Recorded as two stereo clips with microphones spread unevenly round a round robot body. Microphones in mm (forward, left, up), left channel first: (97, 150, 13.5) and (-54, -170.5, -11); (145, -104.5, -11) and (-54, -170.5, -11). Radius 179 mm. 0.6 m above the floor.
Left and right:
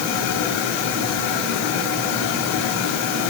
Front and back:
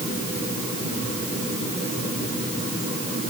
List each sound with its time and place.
Only background noise.